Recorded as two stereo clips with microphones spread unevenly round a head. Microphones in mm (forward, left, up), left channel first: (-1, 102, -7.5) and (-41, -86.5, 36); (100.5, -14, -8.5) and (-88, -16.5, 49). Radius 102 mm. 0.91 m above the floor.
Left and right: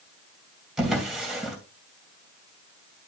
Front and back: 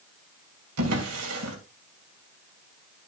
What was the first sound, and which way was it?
A drawer, 170° left.